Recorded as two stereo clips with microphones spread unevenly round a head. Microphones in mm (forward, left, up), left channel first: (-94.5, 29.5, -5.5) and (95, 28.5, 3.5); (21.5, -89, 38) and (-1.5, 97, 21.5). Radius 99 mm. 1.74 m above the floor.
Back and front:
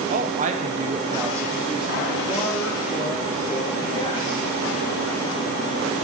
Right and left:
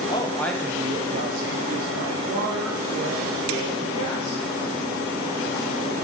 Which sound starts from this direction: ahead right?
A woman speaking, at 0.1 s.